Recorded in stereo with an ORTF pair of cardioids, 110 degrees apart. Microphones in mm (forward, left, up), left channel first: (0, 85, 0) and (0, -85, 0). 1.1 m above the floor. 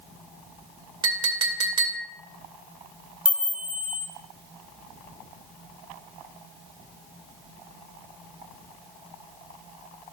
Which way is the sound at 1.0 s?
25° right.